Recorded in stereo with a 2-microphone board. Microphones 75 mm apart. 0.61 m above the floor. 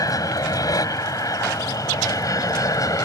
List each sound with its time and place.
0.0 s an aircraft: 55° left (ahead or behind); by 3.0 s 50° left (ahead or behind)